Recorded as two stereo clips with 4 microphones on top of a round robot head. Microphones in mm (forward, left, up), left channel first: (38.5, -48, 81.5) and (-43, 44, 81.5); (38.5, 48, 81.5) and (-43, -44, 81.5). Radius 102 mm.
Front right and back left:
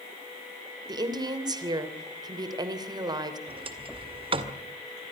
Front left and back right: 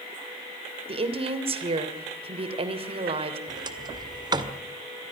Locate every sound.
0.9 s a woman speaking: 175° right, 3 m
3.5 s a sliding door: 175° left, 2 m